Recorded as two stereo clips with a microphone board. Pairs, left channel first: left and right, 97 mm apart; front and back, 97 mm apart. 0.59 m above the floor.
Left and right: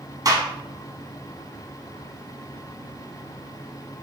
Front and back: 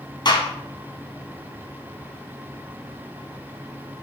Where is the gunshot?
40° right, 1.6 m.